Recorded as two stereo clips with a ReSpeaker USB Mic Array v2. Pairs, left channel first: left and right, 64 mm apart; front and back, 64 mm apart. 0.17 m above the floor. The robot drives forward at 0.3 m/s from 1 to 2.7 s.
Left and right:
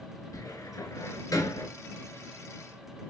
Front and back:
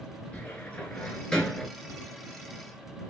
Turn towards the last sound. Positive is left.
turn(degrees=105)